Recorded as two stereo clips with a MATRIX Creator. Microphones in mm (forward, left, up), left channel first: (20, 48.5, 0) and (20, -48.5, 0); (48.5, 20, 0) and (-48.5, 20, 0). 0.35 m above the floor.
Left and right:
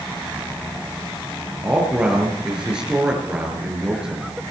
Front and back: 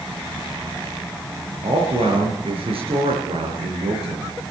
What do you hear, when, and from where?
1.6 s a man speaking: 170° right, 5.5 m